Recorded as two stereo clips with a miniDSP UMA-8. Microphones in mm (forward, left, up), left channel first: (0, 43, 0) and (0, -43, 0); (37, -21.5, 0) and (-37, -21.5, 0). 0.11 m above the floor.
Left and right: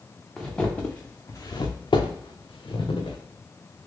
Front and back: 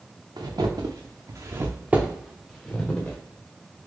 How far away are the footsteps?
About 0.9 m.